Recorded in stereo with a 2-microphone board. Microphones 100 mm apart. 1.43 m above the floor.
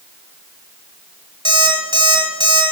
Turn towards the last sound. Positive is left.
turn(degrees=-55)  # may be behind; listen again after turning